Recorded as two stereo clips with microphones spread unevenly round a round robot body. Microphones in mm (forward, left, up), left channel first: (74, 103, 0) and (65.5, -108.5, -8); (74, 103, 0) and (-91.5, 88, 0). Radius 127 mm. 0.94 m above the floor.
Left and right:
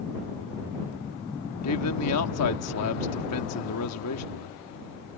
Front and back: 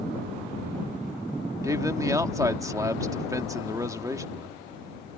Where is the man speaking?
115° left.